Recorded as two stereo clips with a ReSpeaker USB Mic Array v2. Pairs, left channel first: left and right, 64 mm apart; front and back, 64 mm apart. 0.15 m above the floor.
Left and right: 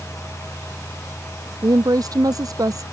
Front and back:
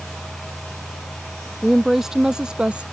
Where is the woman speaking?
90° right; by 2.9 s 110° right.